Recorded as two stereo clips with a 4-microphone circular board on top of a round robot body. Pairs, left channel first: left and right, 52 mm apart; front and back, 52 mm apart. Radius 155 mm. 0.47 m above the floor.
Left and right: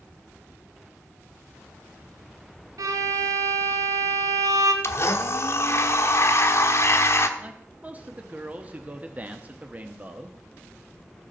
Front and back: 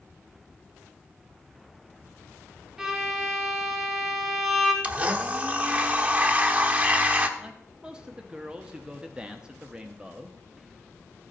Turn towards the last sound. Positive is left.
turn(degrees=-120)